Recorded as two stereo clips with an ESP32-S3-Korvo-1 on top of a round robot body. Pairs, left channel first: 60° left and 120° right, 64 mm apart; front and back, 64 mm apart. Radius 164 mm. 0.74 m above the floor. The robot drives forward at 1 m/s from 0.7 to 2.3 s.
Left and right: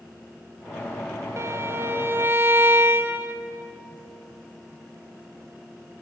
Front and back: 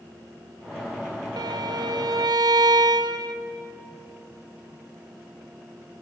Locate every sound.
1.4 s a violin: 170° right, 0.5 m; by 3.4 s 175° right, 1.5 m